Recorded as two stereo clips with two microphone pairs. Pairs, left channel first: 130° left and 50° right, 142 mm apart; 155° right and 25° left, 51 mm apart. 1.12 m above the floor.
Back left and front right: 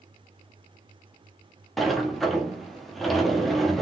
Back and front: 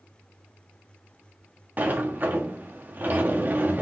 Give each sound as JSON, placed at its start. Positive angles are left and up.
{"t": 1.8, "sound": "a sliding door", "azimuth_deg": 40, "distance_m": 0.9}